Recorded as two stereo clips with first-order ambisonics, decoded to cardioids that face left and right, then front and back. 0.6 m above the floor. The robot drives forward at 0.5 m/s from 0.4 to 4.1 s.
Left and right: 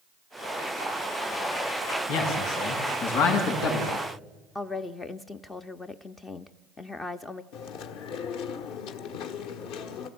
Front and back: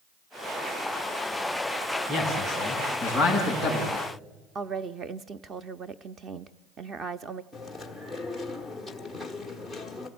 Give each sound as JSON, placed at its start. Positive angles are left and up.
{"t": 2.1, "sound": "a man speaking", "azimuth_deg": 105, "distance_m": 6.0}
{"t": 4.5, "sound": "a woman speaking", "azimuth_deg": 150, "distance_m": 0.6}
{"t": 7.5, "sound": "chewing", "azimuth_deg": 95, "distance_m": 1.4}